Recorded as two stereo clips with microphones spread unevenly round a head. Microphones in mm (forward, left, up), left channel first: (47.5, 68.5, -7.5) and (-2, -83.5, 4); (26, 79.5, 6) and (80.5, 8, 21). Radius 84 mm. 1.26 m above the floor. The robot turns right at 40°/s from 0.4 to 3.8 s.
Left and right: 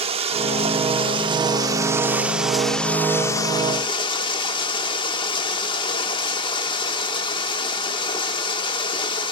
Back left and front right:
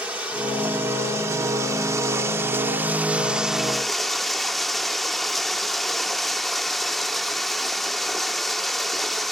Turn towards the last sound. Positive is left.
turn(degrees=25)